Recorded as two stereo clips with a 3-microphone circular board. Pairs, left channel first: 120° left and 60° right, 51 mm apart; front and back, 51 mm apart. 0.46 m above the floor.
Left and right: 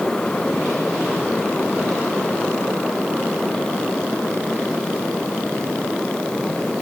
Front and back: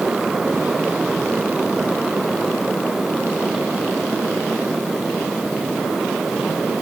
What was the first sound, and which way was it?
Only background noise.